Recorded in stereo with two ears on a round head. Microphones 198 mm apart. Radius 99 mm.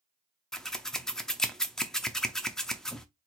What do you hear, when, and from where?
0.5 s scissors: 5° left (ahead or behind), 0.6 m